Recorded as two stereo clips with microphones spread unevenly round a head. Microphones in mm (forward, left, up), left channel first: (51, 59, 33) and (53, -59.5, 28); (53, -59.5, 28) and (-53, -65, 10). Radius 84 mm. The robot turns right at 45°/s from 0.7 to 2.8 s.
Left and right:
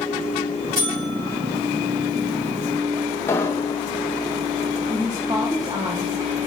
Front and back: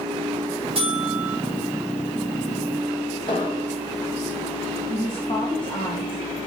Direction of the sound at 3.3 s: 30° left.